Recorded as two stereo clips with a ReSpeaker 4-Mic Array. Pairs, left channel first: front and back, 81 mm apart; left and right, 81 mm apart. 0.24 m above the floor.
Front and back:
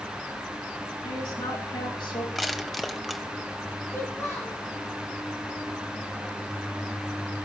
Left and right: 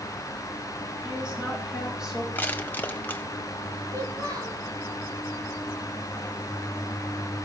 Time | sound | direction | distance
1.0 | a woman speaking | 10° right | 9 m
2.4 | crushing | 90° left | 1.2 m
3.9 | a child speaking | 55° right | 4.5 m